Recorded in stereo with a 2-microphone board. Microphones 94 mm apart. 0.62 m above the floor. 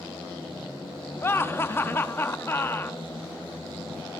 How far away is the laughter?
About 0.5 m.